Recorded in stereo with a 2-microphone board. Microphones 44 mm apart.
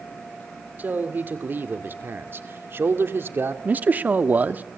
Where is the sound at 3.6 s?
40° right (ahead or behind), 1.1 m.